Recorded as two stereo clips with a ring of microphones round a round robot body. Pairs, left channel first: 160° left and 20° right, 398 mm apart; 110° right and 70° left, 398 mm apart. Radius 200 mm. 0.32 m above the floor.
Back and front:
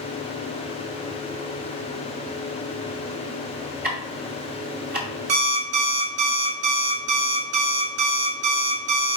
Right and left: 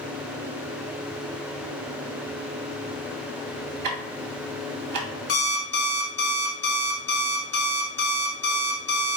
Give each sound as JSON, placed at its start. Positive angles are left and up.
{"t": 3.8, "sound": "ticking", "azimuth_deg": 40, "distance_m": 2.0}
{"t": 5.3, "sound": "an alarm clock", "azimuth_deg": -50, "distance_m": 2.0}